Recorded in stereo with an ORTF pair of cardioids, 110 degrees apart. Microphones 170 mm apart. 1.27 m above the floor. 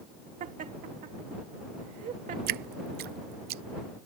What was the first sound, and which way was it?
Laughter, 50° right.